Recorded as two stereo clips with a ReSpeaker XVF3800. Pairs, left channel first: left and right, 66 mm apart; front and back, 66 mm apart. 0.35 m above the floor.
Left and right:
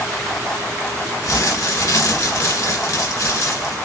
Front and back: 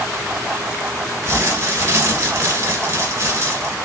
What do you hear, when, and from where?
1.2 s crumpling: 125° left, 1.8 m